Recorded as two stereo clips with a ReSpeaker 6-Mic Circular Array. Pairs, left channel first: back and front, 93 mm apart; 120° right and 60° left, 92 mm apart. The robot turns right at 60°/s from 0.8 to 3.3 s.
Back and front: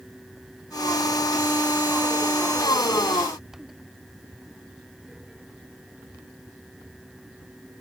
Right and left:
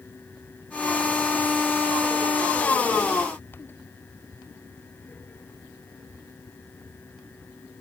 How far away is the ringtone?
I don't hear a ringtone.